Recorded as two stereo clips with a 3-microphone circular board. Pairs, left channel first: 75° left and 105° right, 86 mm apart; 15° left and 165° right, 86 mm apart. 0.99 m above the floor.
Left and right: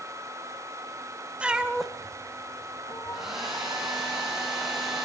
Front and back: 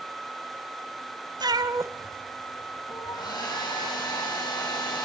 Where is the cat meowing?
Straight behind, 1.4 m; by 3.4 s 30° left, 1.6 m.